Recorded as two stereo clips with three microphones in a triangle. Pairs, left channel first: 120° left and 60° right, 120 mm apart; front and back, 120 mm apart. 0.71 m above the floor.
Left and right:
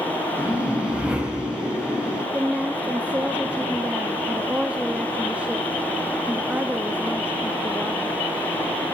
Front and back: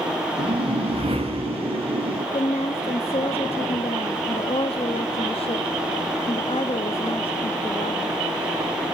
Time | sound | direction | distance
0.4 | a whoosh | 140° right | 4 m
2.3 | a woman speaking | 15° left | 0.7 m